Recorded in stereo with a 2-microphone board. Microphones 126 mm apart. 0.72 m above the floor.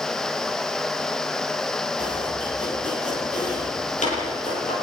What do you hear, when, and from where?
2.0 s chopping: 75° left (ahead or behind), 10 m